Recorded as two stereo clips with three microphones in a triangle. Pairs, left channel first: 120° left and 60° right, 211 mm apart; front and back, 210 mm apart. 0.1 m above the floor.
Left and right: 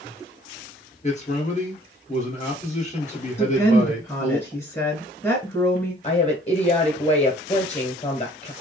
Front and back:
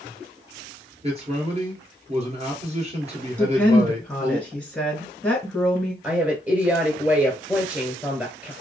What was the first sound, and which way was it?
A man speaking, 145° left.